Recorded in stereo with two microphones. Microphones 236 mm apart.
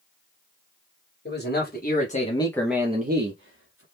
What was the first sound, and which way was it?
A man speaking, 45° left (ahead or behind).